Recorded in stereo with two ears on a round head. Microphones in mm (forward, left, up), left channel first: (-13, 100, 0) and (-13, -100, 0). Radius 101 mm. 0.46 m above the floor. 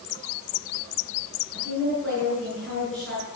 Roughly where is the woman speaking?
Centre.